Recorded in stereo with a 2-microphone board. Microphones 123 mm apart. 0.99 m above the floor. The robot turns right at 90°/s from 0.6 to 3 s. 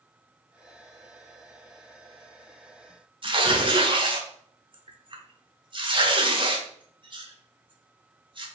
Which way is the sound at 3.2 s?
40° right (ahead or behind).